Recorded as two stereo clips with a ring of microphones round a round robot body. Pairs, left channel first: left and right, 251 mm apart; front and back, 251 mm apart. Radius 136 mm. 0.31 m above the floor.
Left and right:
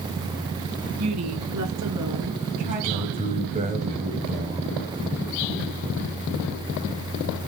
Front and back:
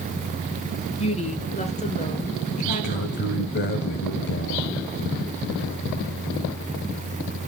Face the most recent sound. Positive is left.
turn(degrees=-30)